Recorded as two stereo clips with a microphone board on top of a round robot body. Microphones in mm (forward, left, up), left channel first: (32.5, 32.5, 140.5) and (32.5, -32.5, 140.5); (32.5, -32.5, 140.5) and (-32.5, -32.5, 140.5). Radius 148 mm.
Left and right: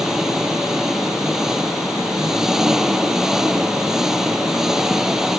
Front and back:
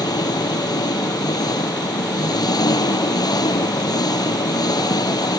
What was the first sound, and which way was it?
An engine running, 5° right.